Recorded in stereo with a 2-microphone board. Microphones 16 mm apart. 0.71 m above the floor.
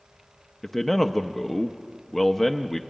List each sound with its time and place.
0.6 s a man speaking: 15° left (ahead or behind), 0.6 m